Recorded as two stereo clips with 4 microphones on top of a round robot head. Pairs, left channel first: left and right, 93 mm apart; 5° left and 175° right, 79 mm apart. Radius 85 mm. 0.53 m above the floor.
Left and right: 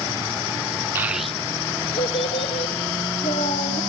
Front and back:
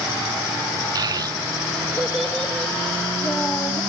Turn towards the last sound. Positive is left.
turn(degrees=80)